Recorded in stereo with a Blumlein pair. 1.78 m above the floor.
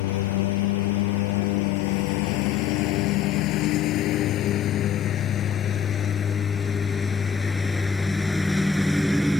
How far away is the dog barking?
I don't hear a dog barking.